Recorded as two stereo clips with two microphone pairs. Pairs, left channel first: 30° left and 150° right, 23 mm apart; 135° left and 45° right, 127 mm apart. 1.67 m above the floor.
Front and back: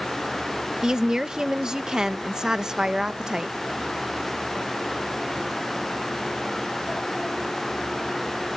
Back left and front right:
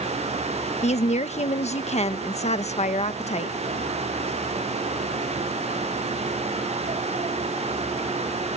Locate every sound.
0.8 s a woman speaking: 150° left